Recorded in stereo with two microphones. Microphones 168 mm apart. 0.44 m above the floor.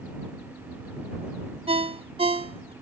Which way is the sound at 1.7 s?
35° right (ahead or behind).